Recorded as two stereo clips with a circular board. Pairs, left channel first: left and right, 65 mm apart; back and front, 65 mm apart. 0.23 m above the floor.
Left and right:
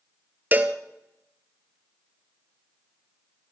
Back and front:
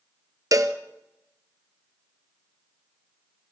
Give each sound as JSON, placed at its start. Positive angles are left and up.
{"t": 0.5, "sound": "a cowbell", "azimuth_deg": -25, "distance_m": 1.0}